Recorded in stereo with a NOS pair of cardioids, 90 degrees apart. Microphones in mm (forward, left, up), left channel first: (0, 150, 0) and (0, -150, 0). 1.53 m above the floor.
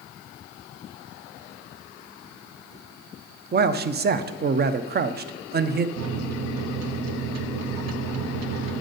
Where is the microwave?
60° right, 0.8 m.